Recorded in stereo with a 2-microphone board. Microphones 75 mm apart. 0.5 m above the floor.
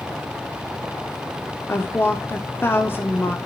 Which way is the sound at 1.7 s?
30° left (ahead or behind).